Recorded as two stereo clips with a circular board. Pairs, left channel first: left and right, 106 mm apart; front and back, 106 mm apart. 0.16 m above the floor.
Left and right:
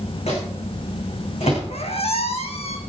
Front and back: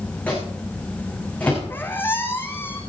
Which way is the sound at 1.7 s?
70° left.